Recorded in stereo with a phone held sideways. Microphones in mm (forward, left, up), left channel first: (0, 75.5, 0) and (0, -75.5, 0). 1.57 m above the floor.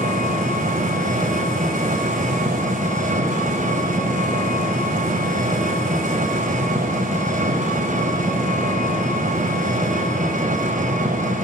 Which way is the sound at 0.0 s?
60° right (ahead or behind).